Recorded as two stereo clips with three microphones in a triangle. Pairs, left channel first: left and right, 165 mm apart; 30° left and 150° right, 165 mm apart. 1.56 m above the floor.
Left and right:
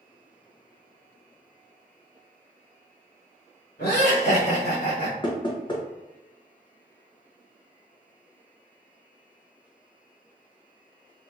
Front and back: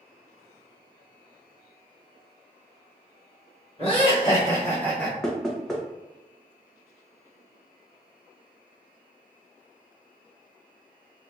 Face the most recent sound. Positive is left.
turn(degrees=115)